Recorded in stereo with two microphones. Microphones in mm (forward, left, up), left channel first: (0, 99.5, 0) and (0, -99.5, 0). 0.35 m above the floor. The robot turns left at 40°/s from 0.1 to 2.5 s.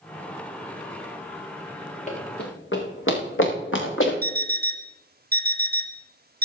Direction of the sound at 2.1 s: 40° left (ahead or behind).